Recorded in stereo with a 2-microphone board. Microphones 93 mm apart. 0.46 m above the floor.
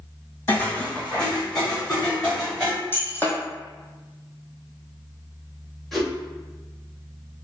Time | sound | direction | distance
0.5 | footsteps | 25° left (ahead or behind) | 1.2 m
2.9 | breaking glass | 25° left (ahead or behind) | 1.3 m
5.9 | a whoosh | 5° left (ahead or behind) | 1.4 m